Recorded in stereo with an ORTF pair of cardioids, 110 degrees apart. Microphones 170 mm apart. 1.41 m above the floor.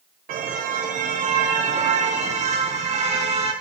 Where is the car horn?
60° right, 3 m; by 3.5 s 40° right, 7 m.